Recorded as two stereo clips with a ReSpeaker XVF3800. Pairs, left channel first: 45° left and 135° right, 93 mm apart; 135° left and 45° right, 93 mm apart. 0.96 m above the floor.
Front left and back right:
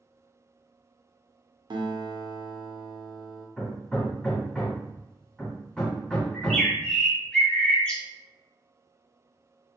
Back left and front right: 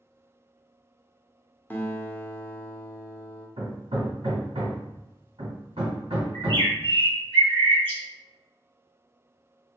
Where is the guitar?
160° right, 0.7 m.